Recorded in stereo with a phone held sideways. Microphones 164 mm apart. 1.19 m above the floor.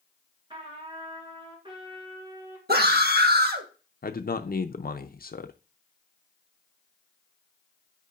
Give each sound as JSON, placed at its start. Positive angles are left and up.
{"t": 0.5, "sound": "a trumpet", "side_deg": -30, "distance_m": 2.5}
{"t": 2.7, "sound": "a scream", "side_deg": -70, "distance_m": 1.4}
{"t": 4.0, "sound": "a man speaking", "side_deg": 60, "distance_m": 0.5}